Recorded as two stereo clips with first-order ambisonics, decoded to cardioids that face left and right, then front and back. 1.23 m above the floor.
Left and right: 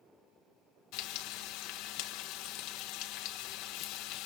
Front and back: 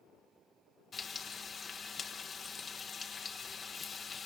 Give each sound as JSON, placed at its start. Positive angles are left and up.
{"t": 0.9, "sound": "frying", "azimuth_deg": 70, "distance_m": 1.4}